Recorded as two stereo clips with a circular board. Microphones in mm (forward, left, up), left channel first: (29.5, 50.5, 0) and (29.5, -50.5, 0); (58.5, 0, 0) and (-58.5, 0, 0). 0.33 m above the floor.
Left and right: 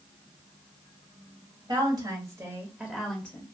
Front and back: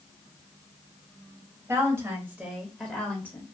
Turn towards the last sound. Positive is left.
turn(degrees=40)